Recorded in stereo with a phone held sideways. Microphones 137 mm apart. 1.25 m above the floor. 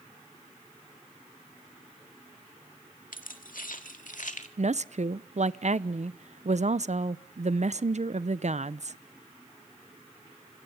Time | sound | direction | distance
3.1 | keys jangling | 80° left | 1.9 m
4.6 | a woman speaking | 55° right (ahead or behind) | 0.7 m